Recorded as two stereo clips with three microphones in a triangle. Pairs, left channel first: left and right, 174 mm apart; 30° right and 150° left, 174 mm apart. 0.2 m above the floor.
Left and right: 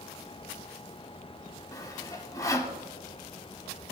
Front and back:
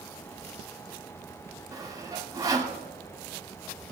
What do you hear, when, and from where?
1.7 s sawing: 125° left, 0.9 m